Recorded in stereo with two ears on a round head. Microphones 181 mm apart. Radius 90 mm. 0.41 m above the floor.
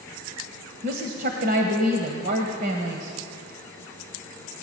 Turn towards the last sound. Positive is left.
turn(degrees=-50)  # may be behind; listen again after turning